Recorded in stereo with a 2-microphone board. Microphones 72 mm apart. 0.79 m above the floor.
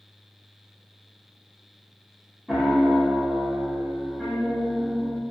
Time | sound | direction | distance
2.5 | a piano | 5° right (ahead or behind) | 0.6 m